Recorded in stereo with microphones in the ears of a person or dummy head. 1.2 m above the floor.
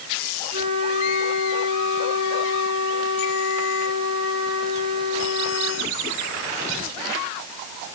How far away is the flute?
About 6.5 m.